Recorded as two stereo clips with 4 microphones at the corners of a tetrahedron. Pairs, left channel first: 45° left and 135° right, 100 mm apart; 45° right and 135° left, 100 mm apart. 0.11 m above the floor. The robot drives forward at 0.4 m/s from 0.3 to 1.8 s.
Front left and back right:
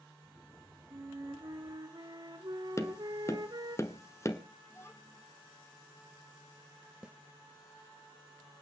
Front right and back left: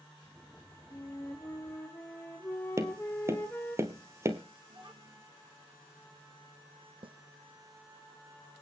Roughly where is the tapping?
Left.